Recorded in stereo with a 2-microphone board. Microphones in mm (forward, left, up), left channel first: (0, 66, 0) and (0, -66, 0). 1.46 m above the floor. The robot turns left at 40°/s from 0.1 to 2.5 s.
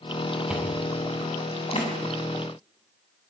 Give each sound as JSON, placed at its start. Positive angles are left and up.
{"t": 0.5, "sound": "chewing", "side_deg": -5, "distance_m": 6.5}